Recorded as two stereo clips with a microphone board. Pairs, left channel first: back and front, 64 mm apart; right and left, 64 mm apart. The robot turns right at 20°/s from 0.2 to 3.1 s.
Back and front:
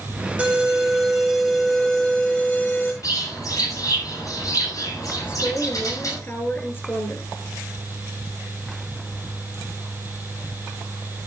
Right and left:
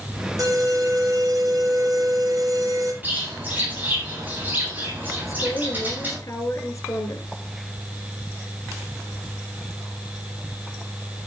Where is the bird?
150° left, 8.5 m.